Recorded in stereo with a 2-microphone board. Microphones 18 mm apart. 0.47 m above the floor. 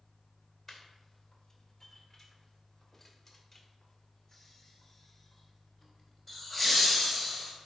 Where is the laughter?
10° left (ahead or behind), 2 m; by 7.5 s 5° right (ahead or behind), 2.5 m.